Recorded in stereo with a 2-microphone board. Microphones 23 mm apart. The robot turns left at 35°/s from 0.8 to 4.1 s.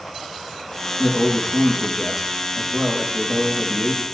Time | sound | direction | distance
1.0 | a man speaking | 25° left | 7 m